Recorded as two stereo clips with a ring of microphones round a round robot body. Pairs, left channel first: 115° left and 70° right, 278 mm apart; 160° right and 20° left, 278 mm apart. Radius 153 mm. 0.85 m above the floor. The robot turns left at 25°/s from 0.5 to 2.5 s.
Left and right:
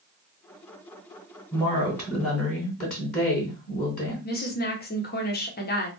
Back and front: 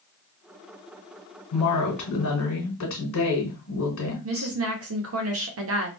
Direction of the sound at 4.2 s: 60° left.